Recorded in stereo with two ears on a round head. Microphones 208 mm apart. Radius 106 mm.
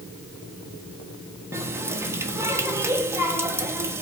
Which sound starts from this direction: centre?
A running tap, at 1.5 s.